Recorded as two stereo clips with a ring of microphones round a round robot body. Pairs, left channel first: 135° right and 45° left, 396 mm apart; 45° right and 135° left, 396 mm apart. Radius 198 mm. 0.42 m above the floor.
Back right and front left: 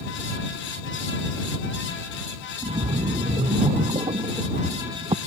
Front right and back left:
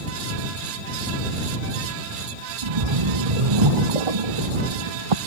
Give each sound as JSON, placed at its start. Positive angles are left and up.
{"t": 2.6, "sound": "a splash", "azimuth_deg": 125}